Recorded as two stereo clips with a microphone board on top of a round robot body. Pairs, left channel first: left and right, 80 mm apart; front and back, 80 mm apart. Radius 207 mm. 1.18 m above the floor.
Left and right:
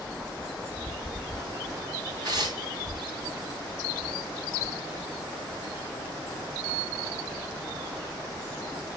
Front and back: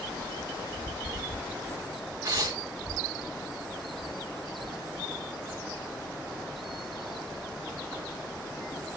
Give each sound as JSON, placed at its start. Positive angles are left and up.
{"t": 2.2, "sound": "tearing paper", "azimuth_deg": -125, "distance_m": 1.2}